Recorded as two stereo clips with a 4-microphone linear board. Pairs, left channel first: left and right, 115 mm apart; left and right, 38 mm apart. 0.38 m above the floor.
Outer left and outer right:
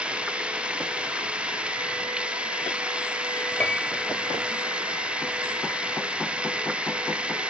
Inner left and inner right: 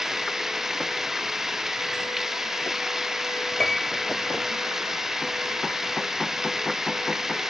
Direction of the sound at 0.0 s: 10° right (ahead or behind).